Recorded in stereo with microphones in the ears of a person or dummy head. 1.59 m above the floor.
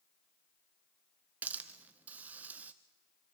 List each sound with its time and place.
1.4 s a hiss: 10° right (ahead or behind), 1.0 m